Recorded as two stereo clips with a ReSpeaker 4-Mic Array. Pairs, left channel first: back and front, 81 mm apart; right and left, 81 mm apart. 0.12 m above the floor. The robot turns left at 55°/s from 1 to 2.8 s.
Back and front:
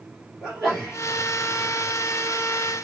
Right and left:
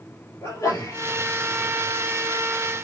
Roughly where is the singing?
I don't hear singing.